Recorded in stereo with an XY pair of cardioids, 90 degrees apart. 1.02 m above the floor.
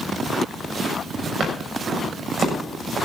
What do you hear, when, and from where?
1.4 s footsteps: 55° right, 7 m